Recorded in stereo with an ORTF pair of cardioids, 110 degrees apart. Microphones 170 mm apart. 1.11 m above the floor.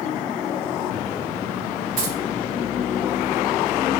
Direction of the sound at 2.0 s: 55° right.